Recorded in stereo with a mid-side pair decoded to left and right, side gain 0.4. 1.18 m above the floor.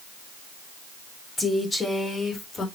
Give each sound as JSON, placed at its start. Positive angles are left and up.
{"t": 1.4, "sound": "a woman speaking", "azimuth_deg": 30, "distance_m": 3.5}